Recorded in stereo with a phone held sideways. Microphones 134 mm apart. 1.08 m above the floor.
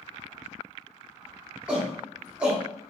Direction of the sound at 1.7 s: 10° right (ahead or behind).